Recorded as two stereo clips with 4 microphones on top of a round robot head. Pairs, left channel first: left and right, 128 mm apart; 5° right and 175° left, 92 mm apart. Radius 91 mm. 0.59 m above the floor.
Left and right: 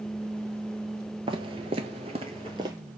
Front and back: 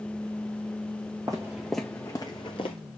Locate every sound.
1.3 s footsteps: 125° right, 0.7 m; by 2.8 s 25° right, 0.8 m